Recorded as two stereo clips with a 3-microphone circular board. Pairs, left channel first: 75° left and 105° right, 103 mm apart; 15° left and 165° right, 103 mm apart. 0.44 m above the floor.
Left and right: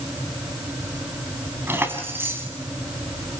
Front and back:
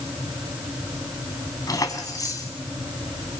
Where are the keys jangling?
35° right, 3 m.